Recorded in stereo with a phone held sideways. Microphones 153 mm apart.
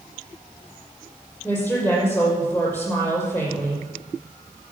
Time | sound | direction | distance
1.4 | a woman speaking | 15° left (ahead or behind) | 5.5 m